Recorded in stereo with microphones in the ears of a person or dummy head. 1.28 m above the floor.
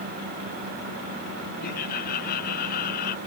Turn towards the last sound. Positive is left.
turn(degrees=55)  # may be behind; listen again after turning